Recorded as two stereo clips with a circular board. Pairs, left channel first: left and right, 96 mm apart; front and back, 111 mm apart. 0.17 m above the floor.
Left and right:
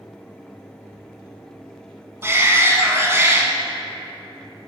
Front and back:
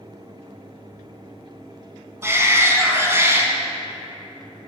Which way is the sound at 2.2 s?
130° right.